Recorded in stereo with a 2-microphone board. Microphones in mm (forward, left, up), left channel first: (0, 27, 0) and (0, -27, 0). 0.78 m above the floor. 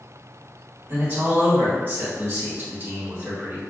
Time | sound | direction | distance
0.9 | a man speaking | 35° right (ahead or behind) | 1.8 m